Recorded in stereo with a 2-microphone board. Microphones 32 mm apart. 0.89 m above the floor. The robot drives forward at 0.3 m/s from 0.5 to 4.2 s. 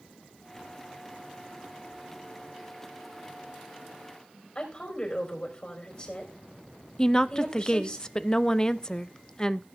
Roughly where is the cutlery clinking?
I don't hear cutlery clinking.